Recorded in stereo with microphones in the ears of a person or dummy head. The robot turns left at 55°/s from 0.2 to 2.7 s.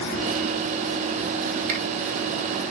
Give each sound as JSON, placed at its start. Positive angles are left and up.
{"t": 1.7, "sound": "a finger snap", "side_deg": -40, "distance_m": 3.5}